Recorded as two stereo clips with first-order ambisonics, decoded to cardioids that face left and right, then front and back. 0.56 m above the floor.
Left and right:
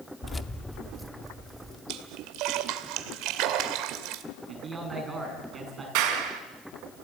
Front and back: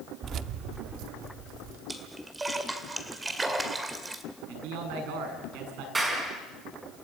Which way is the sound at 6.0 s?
105° right.